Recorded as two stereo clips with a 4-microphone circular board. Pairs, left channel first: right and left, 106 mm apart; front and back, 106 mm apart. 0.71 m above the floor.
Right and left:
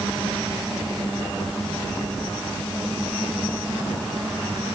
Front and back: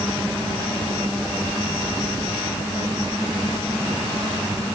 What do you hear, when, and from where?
Only background noise.